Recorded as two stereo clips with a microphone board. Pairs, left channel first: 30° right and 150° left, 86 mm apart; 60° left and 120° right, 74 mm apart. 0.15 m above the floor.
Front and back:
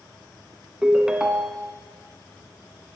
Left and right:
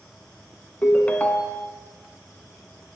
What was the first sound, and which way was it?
A ringtone, 85° left.